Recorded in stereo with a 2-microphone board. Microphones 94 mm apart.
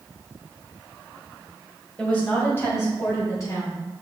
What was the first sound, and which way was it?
A woman speaking, 10° left (ahead or behind).